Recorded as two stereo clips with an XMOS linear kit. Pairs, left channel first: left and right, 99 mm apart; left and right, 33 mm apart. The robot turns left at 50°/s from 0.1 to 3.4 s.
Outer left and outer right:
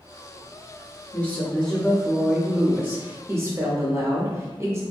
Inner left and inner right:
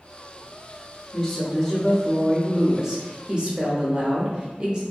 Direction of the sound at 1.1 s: 15° left (ahead or behind).